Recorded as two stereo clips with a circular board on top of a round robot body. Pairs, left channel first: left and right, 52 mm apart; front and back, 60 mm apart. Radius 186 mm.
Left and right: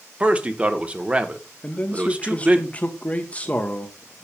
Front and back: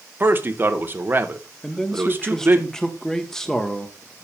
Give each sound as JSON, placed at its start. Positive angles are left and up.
{"t": 0.2, "sound": "a man speaking", "azimuth_deg": -145, "distance_m": 1.3}
{"t": 1.6, "sound": "a man speaking", "azimuth_deg": 70, "distance_m": 1.4}